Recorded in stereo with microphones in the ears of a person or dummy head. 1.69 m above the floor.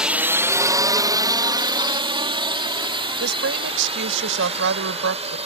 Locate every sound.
0.0 s a drone: 5° right (ahead or behind); by 5.5 s 25° right (ahead or behind)
3.2 s a woman speaking: 70° right (ahead or behind)